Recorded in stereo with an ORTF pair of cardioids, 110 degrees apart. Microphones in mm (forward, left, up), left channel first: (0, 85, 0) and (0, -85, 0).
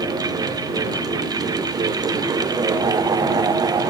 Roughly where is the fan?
Ahead.